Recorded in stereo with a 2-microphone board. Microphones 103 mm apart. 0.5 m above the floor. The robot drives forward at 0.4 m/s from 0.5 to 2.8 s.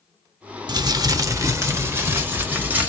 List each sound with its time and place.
0.7 s crumpling: 45° right (ahead or behind), 0.6 m; by 2.9 s 20° right (ahead or behind), 1.2 m